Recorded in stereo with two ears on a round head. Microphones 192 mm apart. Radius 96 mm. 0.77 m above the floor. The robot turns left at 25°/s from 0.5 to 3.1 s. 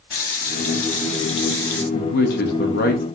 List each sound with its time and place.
0.1 s a running tap: 45° left, 0.8 m; by 1.8 s 10° left, 0.8 m
1.9 s a man speaking: 45° left (ahead or behind), 0.6 m